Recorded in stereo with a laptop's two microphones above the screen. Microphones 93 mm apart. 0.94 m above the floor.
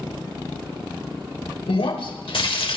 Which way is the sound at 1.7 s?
80° left.